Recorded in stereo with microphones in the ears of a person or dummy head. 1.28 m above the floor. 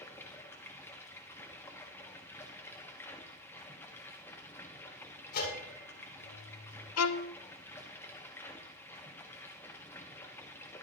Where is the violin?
90° left, 0.7 m.